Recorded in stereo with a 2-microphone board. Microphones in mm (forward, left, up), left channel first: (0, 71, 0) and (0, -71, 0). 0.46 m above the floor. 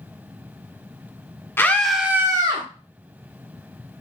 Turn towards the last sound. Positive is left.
turn(degrees=-35)  # may be behind; listen again after turning